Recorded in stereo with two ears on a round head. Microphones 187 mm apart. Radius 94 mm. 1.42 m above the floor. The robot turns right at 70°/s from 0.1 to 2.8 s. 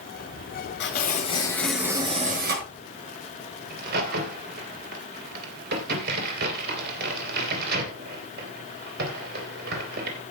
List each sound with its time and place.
0.8 s tearing paper: 115° left, 6 m; by 2.6 s 115° right, 6 m
3.7 s a crack: 50° right (ahead or behind), 3 m